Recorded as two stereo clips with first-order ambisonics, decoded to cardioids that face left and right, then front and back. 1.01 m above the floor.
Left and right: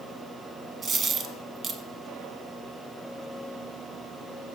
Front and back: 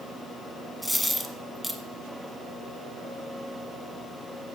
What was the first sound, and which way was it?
A dropped coin, 85° right.